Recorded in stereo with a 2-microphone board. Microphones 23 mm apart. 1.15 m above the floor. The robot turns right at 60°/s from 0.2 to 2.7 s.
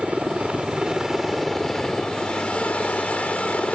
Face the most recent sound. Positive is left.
turn(degrees=75)